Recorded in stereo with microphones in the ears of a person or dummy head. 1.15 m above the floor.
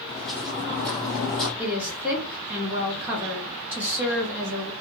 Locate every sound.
0.1 s footsteps: 10° left (ahead or behind), 2.5 m; by 1.5 s centre (ahead or behind), 1.6 m
1.6 s a woman speaking: 10° right (ahead or behind), 1.9 m